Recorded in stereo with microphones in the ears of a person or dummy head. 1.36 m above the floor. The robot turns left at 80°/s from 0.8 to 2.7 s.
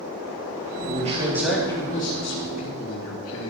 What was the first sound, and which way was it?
A man speaking, 130° right.